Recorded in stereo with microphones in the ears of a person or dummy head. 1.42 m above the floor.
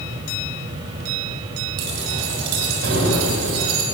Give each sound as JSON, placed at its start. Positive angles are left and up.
{"t": 1.8, "sound": "keys jangling", "side_deg": -60, "distance_m": 8.5}